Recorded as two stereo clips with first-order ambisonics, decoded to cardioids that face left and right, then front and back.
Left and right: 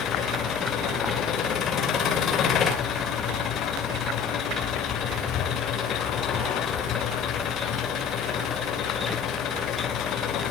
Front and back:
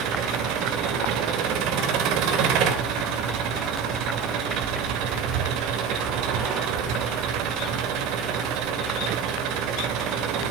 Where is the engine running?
150° left, 2.5 m.